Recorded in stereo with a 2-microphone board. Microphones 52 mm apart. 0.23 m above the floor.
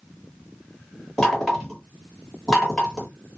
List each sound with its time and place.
1.2 s knocking: 15° left (ahead or behind), 1.6 m